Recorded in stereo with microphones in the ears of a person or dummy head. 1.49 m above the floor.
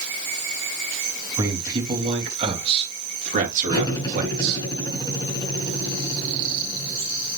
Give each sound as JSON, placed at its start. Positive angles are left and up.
{"t": 1.4, "sound": "a man speaking", "side_deg": -20, "distance_m": 3.0}
{"t": 3.7, "sound": "cutlery clinking", "side_deg": 20, "distance_m": 5.0}